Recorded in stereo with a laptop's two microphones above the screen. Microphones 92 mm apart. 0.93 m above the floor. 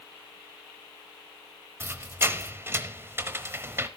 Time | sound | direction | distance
1.8 | a squeak | 25° right (ahead or behind) | 0.9 m